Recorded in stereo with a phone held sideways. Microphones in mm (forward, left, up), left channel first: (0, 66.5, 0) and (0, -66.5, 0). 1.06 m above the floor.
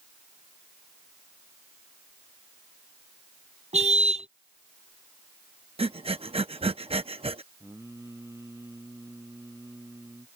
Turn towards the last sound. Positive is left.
turn(degrees=-20)  # may be behind; listen again after turning